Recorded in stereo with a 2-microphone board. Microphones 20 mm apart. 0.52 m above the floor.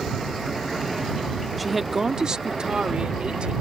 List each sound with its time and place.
1.6 s a woman speaking: centre (ahead or behind); by 3.5 s 60° right (ahead or behind)